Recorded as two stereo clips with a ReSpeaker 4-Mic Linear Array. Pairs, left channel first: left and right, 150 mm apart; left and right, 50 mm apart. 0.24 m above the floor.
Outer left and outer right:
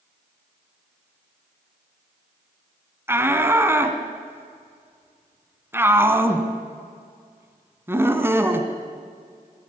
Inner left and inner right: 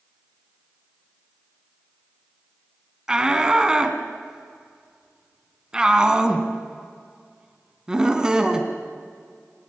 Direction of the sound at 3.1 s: 15° right (ahead or behind).